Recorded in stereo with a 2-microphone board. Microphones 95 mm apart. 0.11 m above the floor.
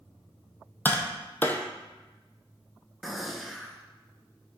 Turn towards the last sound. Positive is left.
turn(degrees=0)  # may be behind; listen again after turning